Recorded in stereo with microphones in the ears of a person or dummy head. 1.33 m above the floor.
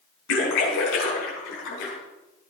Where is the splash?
70° left (ahead or behind), 5 m.